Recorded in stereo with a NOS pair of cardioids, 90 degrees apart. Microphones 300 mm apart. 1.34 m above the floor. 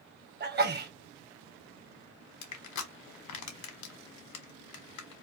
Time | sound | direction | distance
0.4 | a sneeze | 35° right | 0.9 m
2.4 | crushing | 70° left | 1.0 m